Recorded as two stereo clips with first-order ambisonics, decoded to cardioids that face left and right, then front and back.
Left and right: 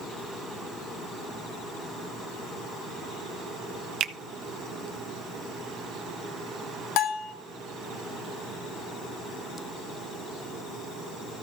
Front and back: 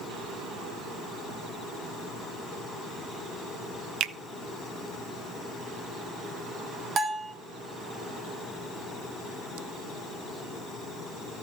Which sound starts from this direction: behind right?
A finger snap, at 4.0 s.